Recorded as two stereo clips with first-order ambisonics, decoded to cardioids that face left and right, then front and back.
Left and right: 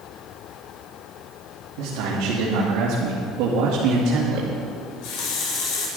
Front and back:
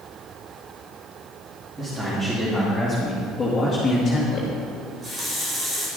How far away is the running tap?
About 3 m.